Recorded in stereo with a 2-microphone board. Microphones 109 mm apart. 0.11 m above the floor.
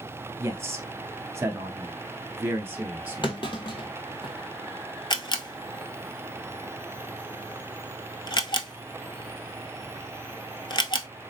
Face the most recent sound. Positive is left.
turn(degrees=45)  # may be behind; listen again after turning